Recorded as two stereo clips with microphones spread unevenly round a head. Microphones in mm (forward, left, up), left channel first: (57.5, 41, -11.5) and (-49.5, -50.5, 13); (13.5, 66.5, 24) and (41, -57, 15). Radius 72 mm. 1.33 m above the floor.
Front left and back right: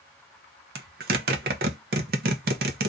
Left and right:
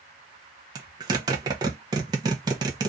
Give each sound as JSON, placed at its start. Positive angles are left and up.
{"t": 0.8, "sound": "a zipper", "azimuth_deg": -145, "distance_m": 0.7}